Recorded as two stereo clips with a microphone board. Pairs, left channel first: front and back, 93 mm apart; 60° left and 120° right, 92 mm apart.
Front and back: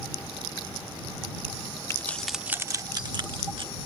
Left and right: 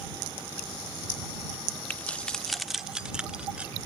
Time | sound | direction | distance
1.9 | keys jangling | 10° left | ?